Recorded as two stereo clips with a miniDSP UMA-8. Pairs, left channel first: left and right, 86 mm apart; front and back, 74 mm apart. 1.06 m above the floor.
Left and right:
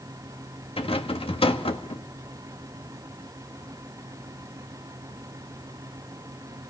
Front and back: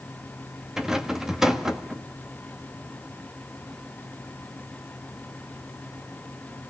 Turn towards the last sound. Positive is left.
turn(degrees=95)